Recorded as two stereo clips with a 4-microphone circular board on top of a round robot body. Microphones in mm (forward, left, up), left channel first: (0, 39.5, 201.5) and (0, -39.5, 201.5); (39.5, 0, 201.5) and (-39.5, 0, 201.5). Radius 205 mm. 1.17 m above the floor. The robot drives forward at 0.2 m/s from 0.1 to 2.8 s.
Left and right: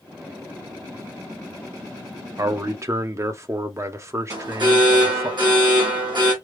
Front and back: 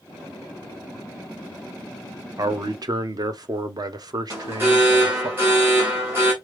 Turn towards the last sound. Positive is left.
turn(degrees=-115)